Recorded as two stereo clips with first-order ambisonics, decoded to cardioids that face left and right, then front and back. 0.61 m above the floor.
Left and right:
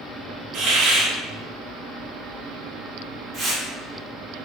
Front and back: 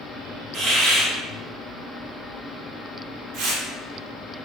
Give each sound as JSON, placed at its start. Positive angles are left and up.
{"t": 0.5, "sound": "a hiss", "azimuth_deg": -125, "distance_m": 0.7}
{"t": 3.3, "sound": "tearing paper", "azimuth_deg": -170, "distance_m": 0.9}